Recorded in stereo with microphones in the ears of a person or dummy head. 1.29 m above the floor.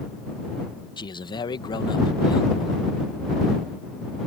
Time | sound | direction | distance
1.0 | a man speaking | 25° left (ahead or behind) | ?